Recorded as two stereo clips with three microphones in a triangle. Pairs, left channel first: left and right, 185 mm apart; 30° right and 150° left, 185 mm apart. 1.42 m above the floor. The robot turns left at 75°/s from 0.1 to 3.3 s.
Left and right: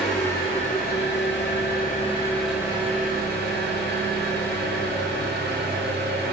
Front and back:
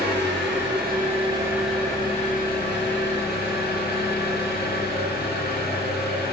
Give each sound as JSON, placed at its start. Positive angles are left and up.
{"t": 0.0, "sound": "an engine running", "azimuth_deg": 180, "distance_m": 0.8}